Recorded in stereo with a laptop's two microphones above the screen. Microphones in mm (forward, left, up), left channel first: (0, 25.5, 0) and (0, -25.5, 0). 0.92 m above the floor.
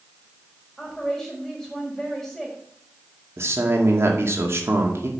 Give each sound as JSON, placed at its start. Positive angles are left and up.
{"t": 0.8, "sound": "a woman speaking", "side_deg": 5, "distance_m": 4.0}
{"t": 3.4, "sound": "a man speaking", "side_deg": -55, "distance_m": 2.0}